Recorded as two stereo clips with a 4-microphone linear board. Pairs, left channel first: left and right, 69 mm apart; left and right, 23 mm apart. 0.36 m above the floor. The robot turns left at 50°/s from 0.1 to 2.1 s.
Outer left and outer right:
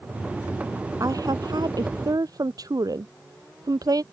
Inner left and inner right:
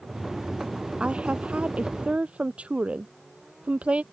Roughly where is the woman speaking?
Ahead right.